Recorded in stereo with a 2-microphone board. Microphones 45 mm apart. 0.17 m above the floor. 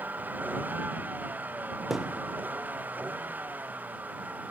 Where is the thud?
5° right (ahead or behind).